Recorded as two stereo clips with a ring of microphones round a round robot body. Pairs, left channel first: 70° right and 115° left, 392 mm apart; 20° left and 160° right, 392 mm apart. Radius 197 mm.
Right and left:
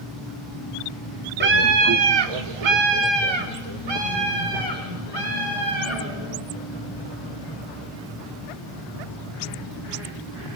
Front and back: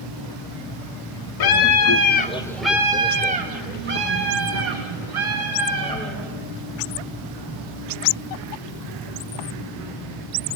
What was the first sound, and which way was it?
A scream, 50° left.